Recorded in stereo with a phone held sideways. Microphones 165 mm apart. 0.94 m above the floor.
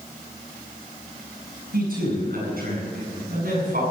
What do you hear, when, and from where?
1.7 s a man speaking: 70° right (ahead or behind), 8 m